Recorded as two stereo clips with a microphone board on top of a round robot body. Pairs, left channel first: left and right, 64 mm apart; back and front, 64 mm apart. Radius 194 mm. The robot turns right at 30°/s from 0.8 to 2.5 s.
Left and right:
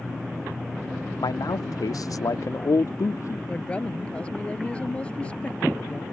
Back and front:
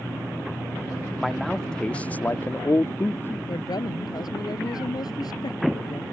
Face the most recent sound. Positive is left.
turn(degrees=165)